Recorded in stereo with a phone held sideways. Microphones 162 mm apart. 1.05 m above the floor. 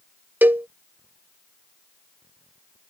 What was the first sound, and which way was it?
A cowbell, 10° right (ahead or behind).